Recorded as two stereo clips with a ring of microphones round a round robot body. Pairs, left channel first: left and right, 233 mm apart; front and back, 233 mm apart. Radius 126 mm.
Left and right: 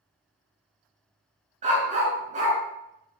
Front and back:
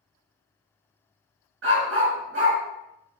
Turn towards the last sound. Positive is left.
turn(degrees=-145)